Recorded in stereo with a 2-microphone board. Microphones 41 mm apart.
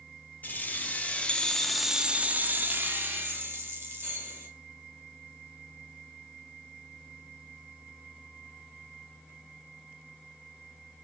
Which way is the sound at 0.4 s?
45° left (ahead or behind).